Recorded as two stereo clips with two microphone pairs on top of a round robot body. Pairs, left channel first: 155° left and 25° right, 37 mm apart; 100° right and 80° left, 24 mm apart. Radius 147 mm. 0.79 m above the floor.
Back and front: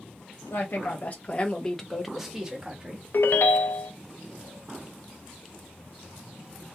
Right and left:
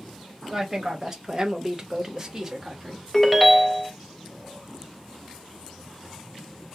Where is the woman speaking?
150° left, 0.9 m; by 3.0 s 20° left, 1.2 m.